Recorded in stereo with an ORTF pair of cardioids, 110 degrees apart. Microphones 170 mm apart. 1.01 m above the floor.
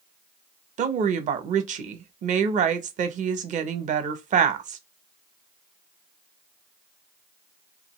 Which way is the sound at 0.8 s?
50° right.